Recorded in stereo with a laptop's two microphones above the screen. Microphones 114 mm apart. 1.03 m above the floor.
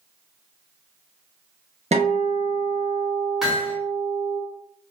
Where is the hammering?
5° right (ahead or behind), 0.9 m.